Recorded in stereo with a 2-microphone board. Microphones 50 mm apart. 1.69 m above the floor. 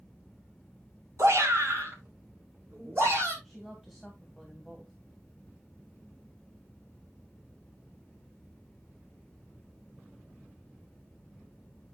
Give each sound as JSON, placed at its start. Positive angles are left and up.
{"t": 1.2, "sound": "a shout", "side_deg": -75, "distance_m": 2.5}
{"t": 3.4, "sound": "a woman speaking", "side_deg": -10, "distance_m": 2.0}